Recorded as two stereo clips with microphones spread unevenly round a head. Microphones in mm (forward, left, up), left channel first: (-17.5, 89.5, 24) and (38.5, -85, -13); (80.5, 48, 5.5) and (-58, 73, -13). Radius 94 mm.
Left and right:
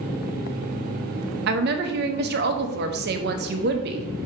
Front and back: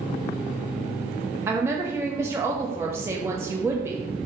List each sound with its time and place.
1.5 s a woman speaking: 110° right, 0.6 m